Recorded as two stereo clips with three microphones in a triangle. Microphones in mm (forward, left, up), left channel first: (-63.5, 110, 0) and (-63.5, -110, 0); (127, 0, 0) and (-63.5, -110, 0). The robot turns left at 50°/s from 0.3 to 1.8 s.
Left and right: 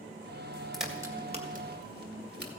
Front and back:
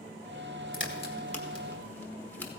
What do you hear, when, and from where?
0.7 s a crack: straight ahead, 1.5 m; by 2.5 s 50° right, 1.5 m